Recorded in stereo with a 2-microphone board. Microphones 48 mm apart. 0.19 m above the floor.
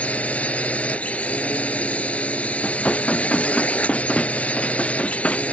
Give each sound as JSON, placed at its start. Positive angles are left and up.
{"t": 0.0, "sound": "a drone", "side_deg": 30}
{"t": 2.6, "sound": "dishes clattering", "side_deg": 25}